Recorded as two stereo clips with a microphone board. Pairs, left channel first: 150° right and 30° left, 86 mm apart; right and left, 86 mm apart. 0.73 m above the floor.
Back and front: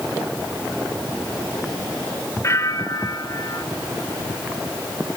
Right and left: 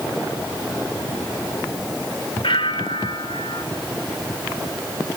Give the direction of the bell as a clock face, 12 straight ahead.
3 o'clock.